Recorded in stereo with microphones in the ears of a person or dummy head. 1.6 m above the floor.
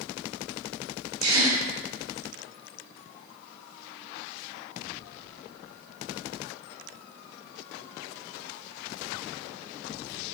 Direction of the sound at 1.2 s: 85° right.